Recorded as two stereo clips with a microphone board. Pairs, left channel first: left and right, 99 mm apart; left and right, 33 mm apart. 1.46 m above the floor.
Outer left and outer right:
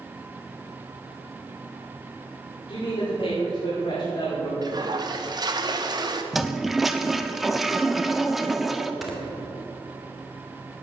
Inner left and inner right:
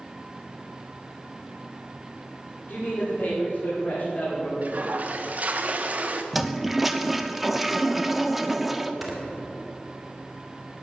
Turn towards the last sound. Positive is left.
turn(degrees=0)  # may be behind; listen again after turning